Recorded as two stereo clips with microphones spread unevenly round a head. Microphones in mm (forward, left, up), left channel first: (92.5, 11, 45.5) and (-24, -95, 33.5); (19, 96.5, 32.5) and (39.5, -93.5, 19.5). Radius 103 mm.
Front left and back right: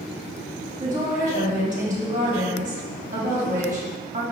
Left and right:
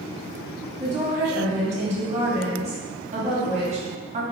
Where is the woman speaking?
125° right, 1.1 m.